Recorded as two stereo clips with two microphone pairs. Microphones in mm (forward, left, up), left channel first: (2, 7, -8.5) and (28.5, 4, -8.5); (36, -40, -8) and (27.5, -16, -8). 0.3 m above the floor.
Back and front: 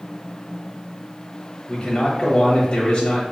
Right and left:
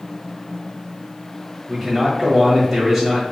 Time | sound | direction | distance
1.7 | a man speaking | 155° left | 1.2 m